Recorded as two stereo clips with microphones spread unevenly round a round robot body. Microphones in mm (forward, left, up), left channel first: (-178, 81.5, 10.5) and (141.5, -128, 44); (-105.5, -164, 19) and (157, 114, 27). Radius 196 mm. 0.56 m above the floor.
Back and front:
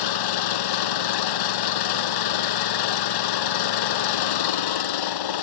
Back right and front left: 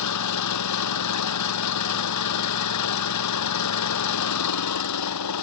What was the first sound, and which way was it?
An engine running, 175° left.